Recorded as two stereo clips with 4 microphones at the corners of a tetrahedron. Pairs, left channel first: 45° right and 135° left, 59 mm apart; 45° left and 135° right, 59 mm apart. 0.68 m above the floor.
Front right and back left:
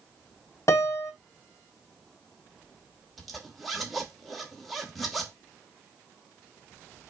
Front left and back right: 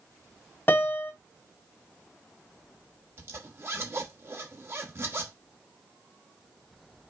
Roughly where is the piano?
Ahead.